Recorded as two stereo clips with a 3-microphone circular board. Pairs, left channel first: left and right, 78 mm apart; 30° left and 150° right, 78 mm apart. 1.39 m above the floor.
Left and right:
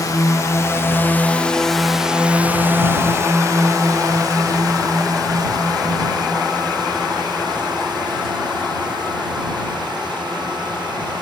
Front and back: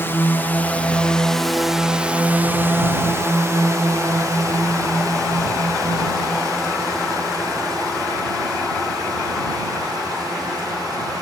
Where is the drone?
80° left; by 11.2 s 110° right.